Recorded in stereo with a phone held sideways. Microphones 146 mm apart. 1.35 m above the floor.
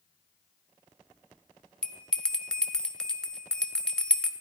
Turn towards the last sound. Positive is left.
turn(degrees=5)  # may be behind; listen again after turning